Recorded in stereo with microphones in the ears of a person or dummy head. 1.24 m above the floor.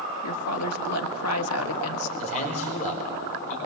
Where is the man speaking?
40° left (ahead or behind), 4.5 m.